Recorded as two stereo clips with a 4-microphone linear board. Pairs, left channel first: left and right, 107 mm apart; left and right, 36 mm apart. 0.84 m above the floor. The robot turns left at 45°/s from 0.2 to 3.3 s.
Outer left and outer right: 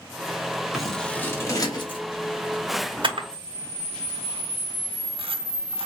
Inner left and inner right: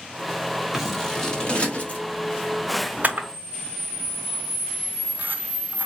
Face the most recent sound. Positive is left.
turn(degrees=-60)  # may be behind; listen again after turning